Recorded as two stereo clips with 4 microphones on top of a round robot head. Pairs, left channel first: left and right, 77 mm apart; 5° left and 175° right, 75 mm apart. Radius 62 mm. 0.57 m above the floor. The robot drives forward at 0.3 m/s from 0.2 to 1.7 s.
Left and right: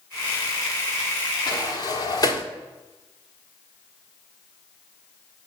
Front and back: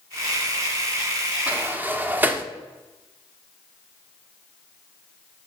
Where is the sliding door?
115° left, 0.9 m; by 2.5 s 120° left, 1.0 m.